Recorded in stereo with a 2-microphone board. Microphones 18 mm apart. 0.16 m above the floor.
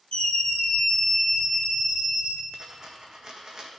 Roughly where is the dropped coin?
Right.